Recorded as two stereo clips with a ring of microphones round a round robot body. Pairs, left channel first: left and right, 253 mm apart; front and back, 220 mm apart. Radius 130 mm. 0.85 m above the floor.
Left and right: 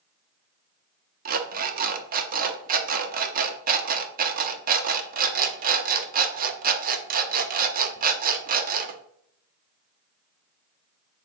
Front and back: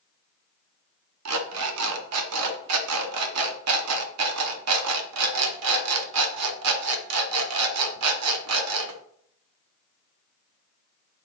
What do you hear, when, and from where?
1.2 s an alarm clock: 150° right, 0.8 m